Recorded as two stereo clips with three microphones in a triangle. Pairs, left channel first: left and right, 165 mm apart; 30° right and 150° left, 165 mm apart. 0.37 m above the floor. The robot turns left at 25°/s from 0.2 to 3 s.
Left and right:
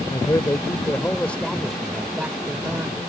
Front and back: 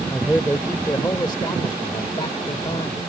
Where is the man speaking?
40° left; by 3.0 s 30° right.